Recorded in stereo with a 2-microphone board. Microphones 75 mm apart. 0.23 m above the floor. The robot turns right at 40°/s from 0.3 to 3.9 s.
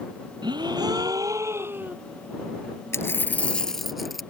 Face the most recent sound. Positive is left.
turn(degrees=180)